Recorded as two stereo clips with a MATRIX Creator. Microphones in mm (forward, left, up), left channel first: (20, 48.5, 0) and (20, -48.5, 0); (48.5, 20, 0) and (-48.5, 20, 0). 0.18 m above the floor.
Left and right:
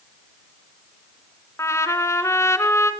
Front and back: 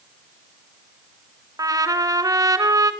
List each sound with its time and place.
1.6 s a trumpet: 140° left, 1.4 m